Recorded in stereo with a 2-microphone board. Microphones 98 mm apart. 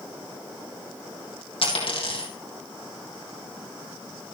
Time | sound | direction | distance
1.6 | a dropped coin | 75° left (ahead or behind) | 3.5 m